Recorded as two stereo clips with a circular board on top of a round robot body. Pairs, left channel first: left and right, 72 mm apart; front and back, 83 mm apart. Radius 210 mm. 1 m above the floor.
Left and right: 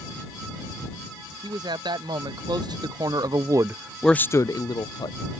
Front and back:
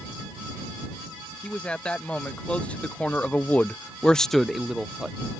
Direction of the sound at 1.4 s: 80° right.